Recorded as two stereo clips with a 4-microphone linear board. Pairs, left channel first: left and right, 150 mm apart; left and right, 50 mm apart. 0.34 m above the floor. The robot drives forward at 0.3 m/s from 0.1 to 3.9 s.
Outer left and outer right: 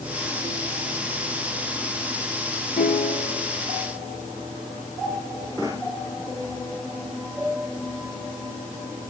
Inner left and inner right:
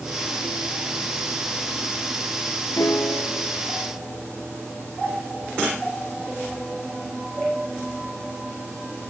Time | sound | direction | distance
2.8 | a piano | 75° left (ahead or behind) | 1.2 m